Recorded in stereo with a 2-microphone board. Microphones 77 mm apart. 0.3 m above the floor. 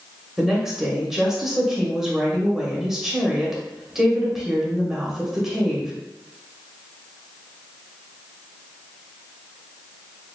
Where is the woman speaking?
5° right (ahead or behind), 0.9 m.